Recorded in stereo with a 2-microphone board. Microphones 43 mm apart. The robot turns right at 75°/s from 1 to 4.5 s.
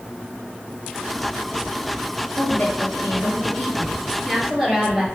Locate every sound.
2.4 s a woman speaking: 40° left, 4 m; by 5.0 s 160° right, 4 m